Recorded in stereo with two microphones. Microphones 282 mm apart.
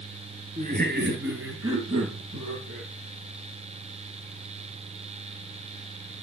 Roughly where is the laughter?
Right.